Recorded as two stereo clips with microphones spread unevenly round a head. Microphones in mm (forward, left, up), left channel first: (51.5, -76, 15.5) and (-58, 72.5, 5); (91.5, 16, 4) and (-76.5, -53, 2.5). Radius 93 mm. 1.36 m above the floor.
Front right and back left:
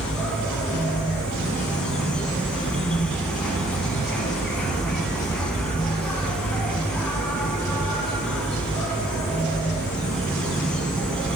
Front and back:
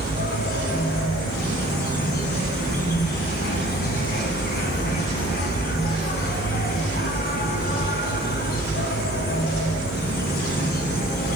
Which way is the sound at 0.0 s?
25° left.